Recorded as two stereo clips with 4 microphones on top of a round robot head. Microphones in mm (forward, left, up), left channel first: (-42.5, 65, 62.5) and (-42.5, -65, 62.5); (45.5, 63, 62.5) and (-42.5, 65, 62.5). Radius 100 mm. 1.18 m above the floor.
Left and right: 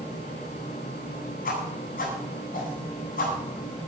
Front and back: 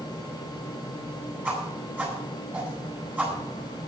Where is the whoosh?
105° left, 9 m.